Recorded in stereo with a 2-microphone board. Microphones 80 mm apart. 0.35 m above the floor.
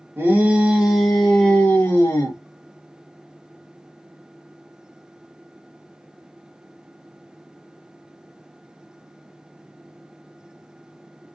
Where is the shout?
25° right (ahead or behind), 1.0 m; by 2.4 s 30° left (ahead or behind), 1.2 m.